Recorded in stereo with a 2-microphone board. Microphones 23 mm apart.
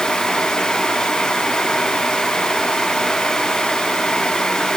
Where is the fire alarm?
No fire alarm in this recording.